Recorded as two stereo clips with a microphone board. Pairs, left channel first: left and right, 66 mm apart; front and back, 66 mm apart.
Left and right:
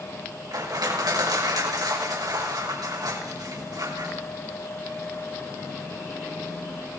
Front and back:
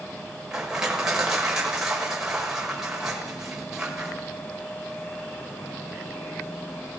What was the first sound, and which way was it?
Crushing, 100° right.